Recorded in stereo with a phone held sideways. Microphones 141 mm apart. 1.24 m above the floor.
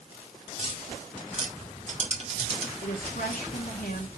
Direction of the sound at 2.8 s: 75° left (ahead or behind).